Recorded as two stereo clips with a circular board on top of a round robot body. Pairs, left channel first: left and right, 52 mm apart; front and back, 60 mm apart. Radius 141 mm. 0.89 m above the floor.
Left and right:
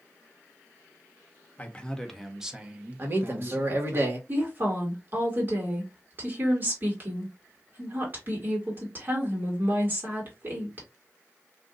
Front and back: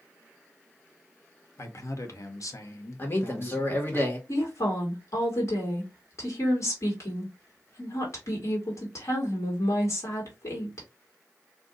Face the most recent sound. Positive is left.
turn(degrees=-40)